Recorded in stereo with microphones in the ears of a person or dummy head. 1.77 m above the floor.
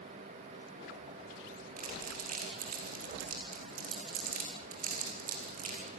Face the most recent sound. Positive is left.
turn(degrees=-45)  # may be behind; listen again after turning